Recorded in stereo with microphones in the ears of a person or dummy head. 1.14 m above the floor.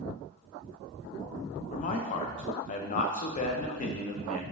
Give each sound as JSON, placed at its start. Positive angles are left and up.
{"t": 1.7, "sound": "a man speaking", "side_deg": 45, "distance_m": 0.6}